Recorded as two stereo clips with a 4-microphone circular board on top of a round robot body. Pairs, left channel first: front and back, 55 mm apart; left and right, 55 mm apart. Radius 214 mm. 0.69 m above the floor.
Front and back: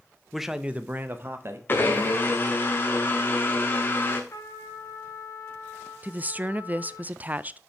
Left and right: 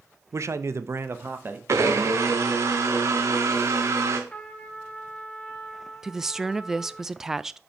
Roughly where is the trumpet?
Ahead.